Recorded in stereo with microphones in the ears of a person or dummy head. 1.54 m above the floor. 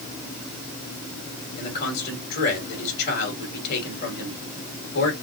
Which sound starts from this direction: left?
A man speaking, at 1.6 s.